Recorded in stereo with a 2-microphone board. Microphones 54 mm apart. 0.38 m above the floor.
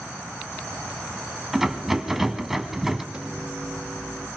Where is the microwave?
15° right (ahead or behind), 5 m.